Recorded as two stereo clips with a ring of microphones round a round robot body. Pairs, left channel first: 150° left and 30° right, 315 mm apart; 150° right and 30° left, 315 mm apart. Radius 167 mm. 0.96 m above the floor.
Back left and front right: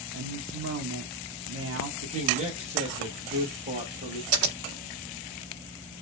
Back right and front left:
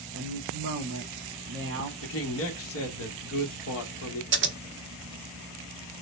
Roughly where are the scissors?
Ahead.